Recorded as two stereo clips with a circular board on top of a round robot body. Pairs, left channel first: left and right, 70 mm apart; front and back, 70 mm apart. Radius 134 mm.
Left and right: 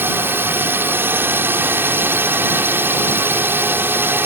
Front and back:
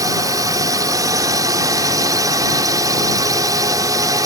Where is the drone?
150° right.